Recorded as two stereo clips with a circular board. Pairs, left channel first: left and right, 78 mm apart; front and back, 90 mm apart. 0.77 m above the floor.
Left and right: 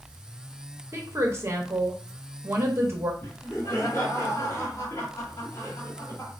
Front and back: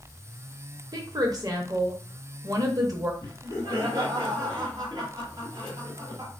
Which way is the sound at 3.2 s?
140° left.